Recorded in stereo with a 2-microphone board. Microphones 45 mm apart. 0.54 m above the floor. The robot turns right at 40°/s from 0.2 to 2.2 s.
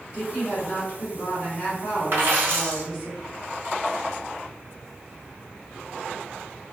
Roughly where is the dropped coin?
Right.